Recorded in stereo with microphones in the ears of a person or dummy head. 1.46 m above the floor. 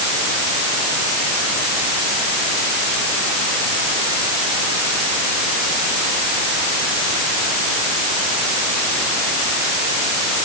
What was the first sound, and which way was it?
Only background noise.